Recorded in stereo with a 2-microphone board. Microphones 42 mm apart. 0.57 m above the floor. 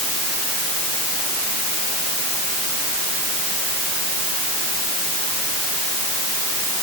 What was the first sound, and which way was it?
Only background noise.